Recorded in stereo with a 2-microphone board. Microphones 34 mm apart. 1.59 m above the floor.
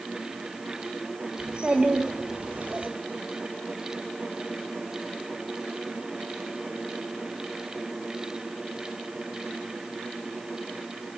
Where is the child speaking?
20° right (ahead or behind), 2.5 m; by 2.9 s 45° right (ahead or behind), 2.5 m.